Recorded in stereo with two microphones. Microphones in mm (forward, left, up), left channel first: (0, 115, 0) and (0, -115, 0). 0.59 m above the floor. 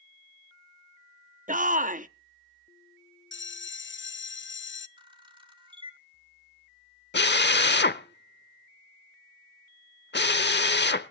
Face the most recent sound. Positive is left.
turn(degrees=50)  # may be behind; listen again after turning